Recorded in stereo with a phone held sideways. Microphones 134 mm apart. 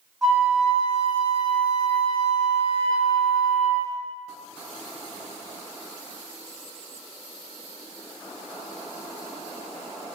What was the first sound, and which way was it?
A flute, centre (ahead or behind).